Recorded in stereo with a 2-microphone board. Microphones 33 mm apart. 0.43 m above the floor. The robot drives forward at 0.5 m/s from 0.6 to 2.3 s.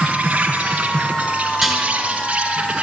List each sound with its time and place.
0.0 s an insect: 50° right (ahead or behind), 3 m; by 2.8 s 40° right (ahead or behind), 3.5 m
1.6 s dishes clattering: centre (ahead or behind), 4 m